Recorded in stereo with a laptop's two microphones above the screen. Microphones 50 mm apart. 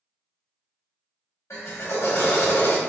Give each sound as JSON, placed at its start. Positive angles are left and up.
{"t": 1.5, "sound": "a drill", "side_deg": 80, "distance_m": 2.0}